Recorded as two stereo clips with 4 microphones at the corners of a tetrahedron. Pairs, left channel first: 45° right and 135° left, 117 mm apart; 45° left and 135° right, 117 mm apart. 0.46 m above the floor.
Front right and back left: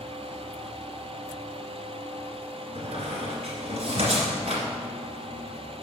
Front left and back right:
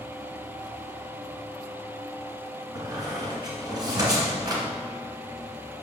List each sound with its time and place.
2.8 s a squeak: 170° left, 2 m